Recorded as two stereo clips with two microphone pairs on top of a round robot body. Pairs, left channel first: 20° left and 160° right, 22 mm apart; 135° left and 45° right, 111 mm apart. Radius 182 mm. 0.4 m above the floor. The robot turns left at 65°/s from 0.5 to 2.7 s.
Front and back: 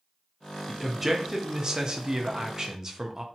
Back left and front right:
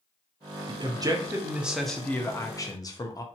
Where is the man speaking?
65° right, 1.0 m; by 3.2 s 160° left, 1.0 m.